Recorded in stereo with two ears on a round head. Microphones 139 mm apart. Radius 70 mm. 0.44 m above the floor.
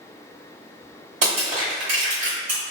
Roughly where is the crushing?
Right.